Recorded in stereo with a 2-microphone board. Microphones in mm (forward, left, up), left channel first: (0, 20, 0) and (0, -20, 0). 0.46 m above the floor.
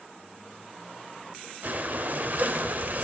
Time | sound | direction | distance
1.6 | breathing | 45° right (ahead or behind) | 0.8 m